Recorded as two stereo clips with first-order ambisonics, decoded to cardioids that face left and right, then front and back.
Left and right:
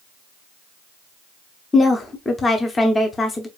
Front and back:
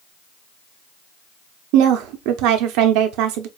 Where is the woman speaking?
165° left, 0.7 m.